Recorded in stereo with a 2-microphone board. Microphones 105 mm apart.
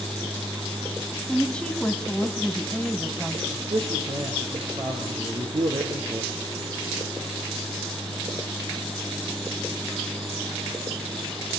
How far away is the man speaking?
About 4 m.